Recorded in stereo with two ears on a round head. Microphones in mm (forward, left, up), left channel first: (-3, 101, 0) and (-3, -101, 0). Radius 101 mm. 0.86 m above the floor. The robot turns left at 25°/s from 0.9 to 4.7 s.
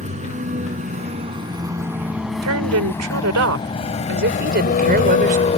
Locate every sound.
0.0 s a vehicle: 30° right (ahead or behind); by 5.6 s 30° left (ahead or behind)
2.4 s a woman speaking: 80° right; by 5.5 s 135° right